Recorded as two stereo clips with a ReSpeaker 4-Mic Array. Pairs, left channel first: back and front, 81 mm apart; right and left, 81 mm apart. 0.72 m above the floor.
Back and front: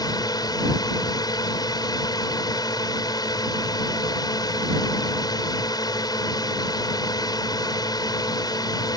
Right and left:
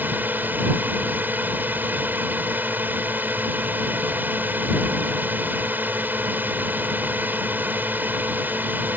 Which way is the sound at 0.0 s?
155° left.